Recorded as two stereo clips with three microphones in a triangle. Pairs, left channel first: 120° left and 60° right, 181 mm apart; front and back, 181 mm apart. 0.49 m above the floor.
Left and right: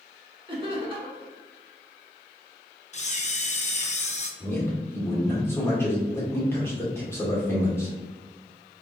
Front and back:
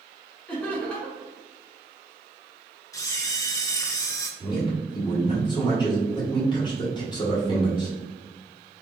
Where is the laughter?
75° right, 1.4 m.